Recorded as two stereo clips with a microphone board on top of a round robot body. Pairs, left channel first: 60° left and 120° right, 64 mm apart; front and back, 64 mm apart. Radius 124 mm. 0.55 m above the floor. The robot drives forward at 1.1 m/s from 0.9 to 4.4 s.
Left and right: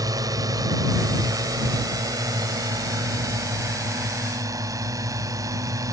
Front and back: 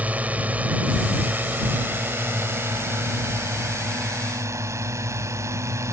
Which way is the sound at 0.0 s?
115° right.